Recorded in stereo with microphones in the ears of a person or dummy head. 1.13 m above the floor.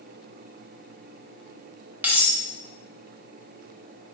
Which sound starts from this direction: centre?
Cutlery clinking, at 2.0 s.